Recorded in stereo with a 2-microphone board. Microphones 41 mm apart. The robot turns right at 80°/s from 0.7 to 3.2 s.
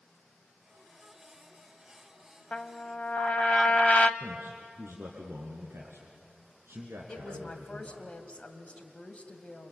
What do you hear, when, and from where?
2.5 s a trumpet: 45° left, 0.8 m; by 4.1 s 100° left, 0.8 m
4.2 s a man speaking: 70° right (ahead or behind), 3 m
7.1 s a woman speaking: 30° left (ahead or behind), 1.7 m